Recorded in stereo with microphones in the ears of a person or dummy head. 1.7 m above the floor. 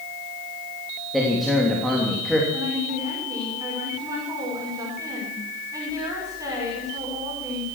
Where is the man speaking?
Centre (ahead or behind), 3 m.